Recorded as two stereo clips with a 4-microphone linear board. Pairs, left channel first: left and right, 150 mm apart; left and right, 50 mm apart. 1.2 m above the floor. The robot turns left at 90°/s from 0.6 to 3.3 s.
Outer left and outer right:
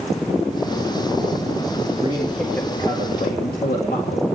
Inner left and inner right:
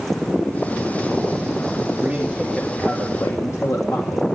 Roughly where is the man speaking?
Behind right.